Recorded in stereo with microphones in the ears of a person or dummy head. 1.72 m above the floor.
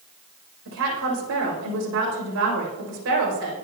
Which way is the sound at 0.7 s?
75° right (ahead or behind).